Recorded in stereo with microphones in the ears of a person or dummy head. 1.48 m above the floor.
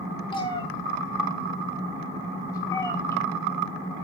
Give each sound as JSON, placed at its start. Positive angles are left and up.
{"t": 0.3, "sound": "a cat meowing", "side_deg": 25, "distance_m": 3.0}